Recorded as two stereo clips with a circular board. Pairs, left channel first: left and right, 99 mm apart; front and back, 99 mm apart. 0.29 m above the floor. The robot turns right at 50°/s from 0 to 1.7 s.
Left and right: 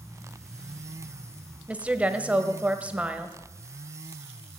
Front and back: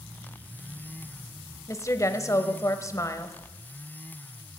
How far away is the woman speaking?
About 1.0 m.